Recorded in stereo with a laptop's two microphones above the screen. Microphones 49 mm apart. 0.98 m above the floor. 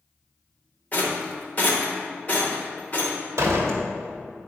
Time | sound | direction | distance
0.9 | a rattle | 35° left (ahead or behind) | 1.1 m
3.4 | a door slam | 70° right (ahead or behind) | 1.2 m